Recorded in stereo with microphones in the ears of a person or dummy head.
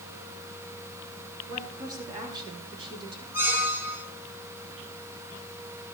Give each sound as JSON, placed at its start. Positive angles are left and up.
{"t": 1.5, "sound": "a woman speaking", "side_deg": -20, "distance_m": 8.5}
{"t": 3.3, "sound": "a squeak", "side_deg": -15, "distance_m": 3.0}